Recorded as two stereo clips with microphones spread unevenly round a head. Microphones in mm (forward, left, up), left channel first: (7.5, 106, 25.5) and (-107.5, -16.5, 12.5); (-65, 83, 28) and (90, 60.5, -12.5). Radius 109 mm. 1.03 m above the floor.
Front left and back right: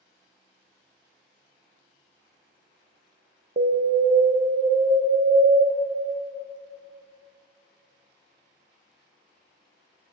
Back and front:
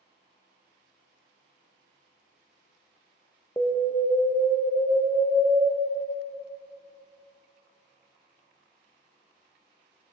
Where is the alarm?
95° right, 0.9 m.